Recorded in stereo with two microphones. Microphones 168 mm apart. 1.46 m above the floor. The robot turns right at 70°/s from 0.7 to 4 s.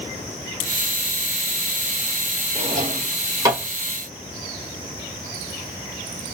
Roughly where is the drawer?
Right.